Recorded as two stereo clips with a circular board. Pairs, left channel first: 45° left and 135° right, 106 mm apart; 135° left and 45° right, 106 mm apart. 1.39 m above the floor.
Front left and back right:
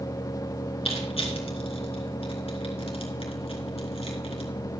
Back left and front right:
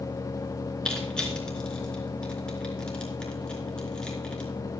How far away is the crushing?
About 4 m.